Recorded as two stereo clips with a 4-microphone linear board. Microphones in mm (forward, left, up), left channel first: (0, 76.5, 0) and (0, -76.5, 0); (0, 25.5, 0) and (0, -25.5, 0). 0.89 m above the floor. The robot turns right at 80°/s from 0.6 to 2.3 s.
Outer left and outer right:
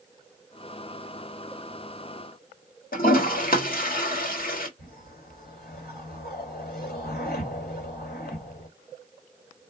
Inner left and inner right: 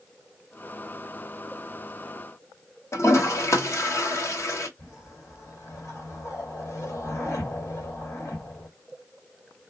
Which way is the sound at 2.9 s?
75° left (ahead or behind).